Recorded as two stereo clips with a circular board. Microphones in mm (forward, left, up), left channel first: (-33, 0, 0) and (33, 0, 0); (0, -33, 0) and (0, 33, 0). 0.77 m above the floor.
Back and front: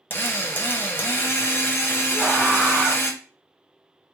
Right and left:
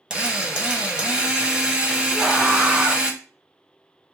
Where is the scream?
70° left, 1.7 m.